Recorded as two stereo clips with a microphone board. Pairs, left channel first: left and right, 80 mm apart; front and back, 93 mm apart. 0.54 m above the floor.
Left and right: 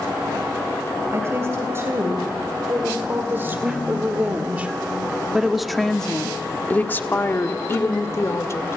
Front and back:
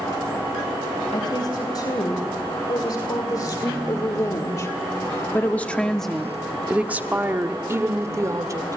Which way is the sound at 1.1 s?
35° right.